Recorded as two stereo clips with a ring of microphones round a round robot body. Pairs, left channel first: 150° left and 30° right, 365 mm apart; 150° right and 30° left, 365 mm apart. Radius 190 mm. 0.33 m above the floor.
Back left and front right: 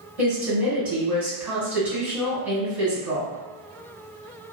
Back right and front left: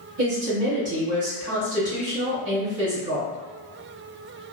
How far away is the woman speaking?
About 1.9 m.